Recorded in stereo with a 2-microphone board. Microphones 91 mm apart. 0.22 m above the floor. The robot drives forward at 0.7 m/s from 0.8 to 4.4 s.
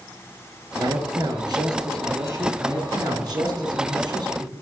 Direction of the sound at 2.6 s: 45° right (ahead or behind).